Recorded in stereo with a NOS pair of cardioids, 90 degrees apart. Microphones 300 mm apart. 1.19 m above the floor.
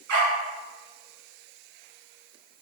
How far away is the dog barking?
About 4 m.